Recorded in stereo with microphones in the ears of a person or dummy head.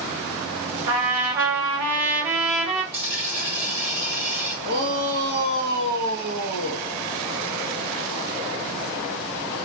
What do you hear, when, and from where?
0.9 s a trumpet: 80° right, 3 m
2.9 s a dropped coin: 30° right (ahead or behind), 1.0 m
4.6 s a shout: 55° right (ahead or behind), 2.5 m